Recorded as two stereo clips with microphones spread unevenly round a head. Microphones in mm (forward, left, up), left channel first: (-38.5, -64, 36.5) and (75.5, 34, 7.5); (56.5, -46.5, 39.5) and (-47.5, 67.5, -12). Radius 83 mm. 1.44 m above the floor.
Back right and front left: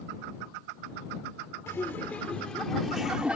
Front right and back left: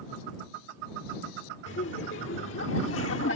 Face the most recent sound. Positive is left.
turn(degrees=-45)